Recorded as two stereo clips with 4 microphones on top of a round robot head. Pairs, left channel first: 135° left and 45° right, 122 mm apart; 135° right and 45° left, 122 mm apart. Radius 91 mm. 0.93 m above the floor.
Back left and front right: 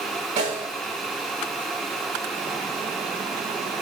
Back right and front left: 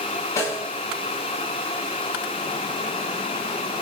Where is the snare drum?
70° right, 6.5 m.